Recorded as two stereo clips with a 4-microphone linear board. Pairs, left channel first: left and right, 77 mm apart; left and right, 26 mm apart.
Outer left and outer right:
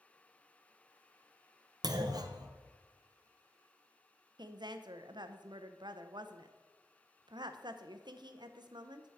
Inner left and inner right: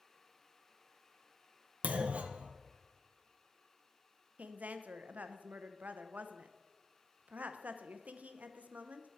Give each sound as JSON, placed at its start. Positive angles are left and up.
{"t": 1.8, "sound": "a clunk", "side_deg": -55, "distance_m": 0.6}
{"t": 4.4, "sound": "a woman speaking", "side_deg": -70, "distance_m": 0.6}